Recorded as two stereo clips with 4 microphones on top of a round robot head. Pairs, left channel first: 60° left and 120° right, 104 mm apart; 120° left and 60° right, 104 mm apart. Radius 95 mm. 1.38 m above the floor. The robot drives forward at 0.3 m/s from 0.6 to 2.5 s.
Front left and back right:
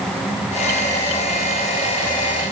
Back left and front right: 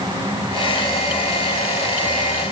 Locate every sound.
Only background noise.